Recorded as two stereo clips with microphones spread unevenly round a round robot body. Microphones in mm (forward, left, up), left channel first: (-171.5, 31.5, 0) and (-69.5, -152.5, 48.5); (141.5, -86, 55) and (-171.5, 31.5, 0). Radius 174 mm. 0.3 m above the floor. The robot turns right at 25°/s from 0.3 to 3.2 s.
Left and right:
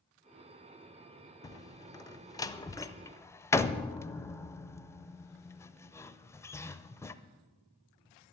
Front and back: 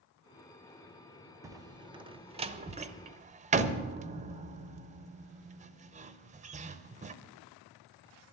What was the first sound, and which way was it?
A door slam, 110° left.